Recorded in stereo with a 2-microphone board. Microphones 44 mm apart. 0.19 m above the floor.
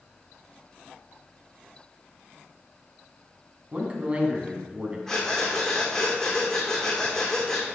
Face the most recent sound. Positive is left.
turn(degrees=10)  # may be behind; listen again after turning